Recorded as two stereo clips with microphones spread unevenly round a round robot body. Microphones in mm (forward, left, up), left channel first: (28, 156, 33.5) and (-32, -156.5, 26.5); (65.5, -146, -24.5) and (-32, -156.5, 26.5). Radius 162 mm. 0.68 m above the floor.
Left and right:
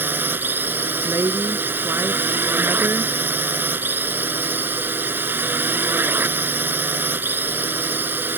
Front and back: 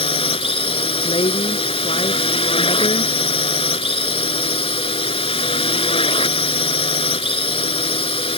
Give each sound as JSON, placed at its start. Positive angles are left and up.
{"t": 0.0, "sound": "a drone", "azimuth_deg": -15}
{"t": 1.0, "sound": "a woman speaking", "azimuth_deg": -20}